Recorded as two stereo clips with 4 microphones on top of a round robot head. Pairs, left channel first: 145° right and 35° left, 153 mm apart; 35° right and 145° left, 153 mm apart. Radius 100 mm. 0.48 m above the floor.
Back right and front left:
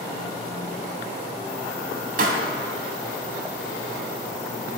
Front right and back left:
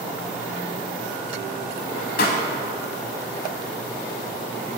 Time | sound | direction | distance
2.2 | a pop | straight ahead | 0.7 m